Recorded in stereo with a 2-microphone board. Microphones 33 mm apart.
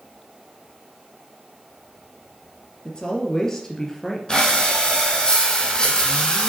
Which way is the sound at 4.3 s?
25° left (ahead or behind).